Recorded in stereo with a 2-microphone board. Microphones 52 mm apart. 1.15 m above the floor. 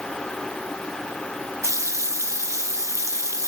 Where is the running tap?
75° right (ahead or behind), 1.0 m.